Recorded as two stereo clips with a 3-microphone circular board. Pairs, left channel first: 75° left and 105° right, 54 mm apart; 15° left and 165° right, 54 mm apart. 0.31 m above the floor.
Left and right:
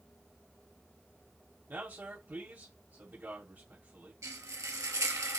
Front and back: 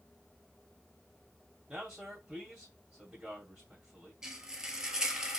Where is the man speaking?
90° right, 1.7 m.